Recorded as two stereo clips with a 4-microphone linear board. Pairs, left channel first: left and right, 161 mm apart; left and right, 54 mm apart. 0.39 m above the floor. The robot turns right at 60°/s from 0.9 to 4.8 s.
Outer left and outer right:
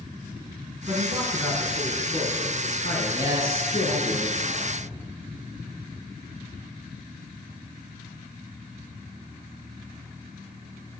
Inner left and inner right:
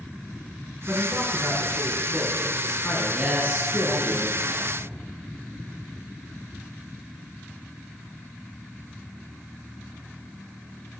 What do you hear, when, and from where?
0.9 s a man speaking: 35° right, 4.5 m; by 4.1 s 160° left, 4.5 m
3.1 s a man speaking: 170° right, 5 m; by 4.7 s 75° right, 5 m